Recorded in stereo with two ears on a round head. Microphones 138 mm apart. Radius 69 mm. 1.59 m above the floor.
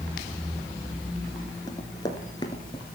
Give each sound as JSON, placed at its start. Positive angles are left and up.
{"t": 1.7, "sound": "running footsteps", "side_deg": 25, "distance_m": 1.7}